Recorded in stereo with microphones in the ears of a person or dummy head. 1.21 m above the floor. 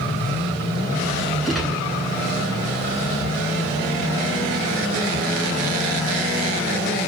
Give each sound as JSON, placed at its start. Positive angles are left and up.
{"t": 1.4, "sound": "a gunshot", "side_deg": 0, "distance_m": 8.5}